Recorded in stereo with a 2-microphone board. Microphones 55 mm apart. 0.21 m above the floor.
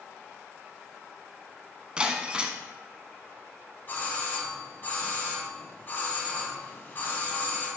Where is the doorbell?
35° left (ahead or behind), 1.7 m.